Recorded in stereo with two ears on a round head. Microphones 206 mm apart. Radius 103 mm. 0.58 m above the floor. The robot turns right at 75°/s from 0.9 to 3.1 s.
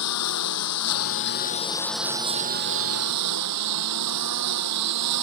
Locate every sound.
0.0 s a lawn mower: 100° left; by 5.2 s 95° right